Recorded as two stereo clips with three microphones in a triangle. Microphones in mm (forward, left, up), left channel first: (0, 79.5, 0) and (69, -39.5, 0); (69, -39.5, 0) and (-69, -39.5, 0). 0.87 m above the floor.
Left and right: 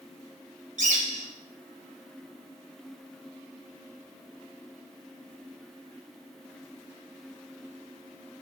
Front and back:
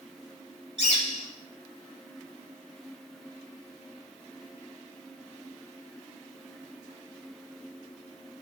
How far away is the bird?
About 2 m.